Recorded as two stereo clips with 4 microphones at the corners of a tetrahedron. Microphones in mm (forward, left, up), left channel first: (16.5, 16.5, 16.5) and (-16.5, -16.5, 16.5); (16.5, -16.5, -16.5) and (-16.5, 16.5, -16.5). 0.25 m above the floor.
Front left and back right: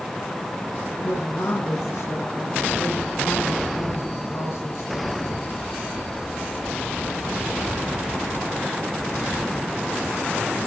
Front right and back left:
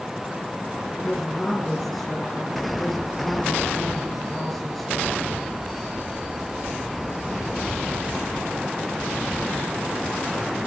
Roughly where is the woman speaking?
Ahead left.